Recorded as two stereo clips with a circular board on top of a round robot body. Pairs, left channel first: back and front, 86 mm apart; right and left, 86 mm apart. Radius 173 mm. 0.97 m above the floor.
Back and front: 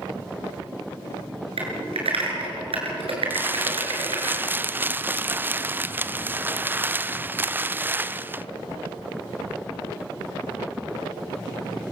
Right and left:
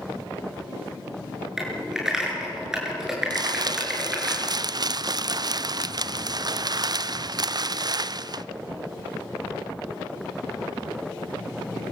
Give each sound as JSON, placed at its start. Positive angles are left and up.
{"t": 1.6, "sound": "typing on a keyboard", "azimuth_deg": 5, "distance_m": 6.5}
{"t": 3.3, "sound": "crumpling", "azimuth_deg": 65, "distance_m": 0.6}